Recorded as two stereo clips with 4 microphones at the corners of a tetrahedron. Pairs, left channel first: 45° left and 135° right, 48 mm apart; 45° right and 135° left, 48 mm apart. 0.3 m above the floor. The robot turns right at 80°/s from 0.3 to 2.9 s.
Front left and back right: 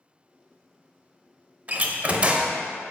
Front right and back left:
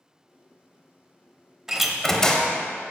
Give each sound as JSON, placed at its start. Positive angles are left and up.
{"t": 1.7, "sound": "a door slam", "azimuth_deg": -155, "distance_m": 0.7}